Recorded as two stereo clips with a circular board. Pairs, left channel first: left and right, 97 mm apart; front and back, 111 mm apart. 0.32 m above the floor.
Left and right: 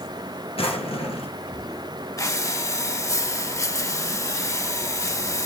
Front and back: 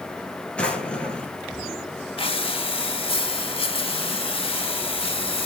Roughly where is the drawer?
Left.